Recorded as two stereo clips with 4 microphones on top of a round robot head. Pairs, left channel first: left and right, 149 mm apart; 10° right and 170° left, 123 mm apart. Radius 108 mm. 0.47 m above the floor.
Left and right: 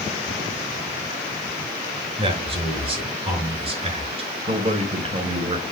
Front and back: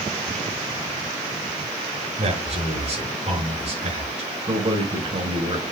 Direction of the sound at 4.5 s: 140° right.